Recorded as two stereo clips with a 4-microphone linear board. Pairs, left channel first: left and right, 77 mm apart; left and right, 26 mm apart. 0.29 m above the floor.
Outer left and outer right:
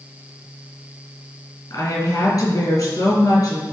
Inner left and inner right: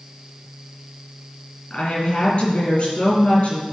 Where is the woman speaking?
50° left (ahead or behind), 4 m.